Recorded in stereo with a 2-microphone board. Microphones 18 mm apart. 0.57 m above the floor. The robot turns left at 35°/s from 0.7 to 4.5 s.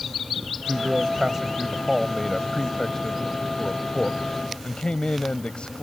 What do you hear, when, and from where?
0.7 s a man speaking: 130° right; by 5.8 s 95° left